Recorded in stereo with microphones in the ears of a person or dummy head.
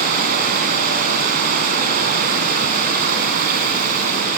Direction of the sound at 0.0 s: 50° right (ahead or behind).